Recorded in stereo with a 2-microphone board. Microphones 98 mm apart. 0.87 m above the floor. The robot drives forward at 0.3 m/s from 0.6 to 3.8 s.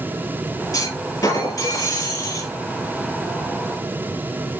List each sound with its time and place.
0.7 s a clunk: 35° left (ahead or behind), 5.5 m; by 2.5 s 30° left (ahead or behind), 6 m